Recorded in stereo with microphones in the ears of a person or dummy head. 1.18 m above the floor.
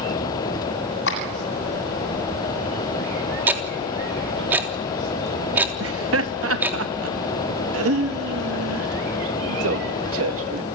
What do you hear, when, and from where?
1.1 s a clap: 75° left (ahead or behind), 7.5 m
3.5 s ticking: 10° right (ahead or behind), 3.5 m
5.8 s laughter: 70° right (ahead or behind), 2 m